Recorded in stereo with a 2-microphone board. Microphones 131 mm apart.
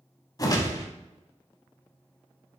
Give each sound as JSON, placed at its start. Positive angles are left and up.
{"t": 0.4, "sound": "a whoosh", "side_deg": 30, "distance_m": 0.6}